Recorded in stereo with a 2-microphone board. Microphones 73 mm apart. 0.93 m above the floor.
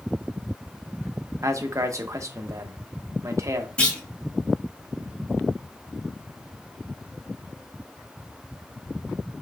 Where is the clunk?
20° left (ahead or behind), 2.5 m.